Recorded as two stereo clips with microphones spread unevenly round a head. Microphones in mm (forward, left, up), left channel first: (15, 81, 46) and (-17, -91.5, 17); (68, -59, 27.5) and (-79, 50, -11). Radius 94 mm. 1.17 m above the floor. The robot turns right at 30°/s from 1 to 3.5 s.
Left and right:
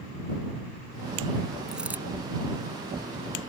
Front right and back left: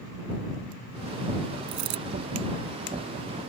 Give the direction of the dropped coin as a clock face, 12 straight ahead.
7 o'clock.